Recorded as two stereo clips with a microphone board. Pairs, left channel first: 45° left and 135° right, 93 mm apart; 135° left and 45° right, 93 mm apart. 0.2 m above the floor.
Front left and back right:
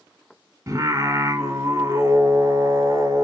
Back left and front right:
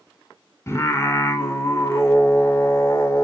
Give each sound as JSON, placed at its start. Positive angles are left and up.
{"t": 0.7, "sound": "singing", "azimuth_deg": -175, "distance_m": 1.5}